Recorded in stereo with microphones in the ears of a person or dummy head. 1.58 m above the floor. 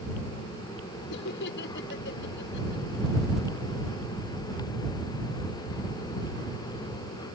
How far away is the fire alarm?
I don't hear a fire alarm.